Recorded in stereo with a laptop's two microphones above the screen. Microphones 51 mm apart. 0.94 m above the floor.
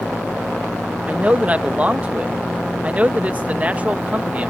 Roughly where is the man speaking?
Right.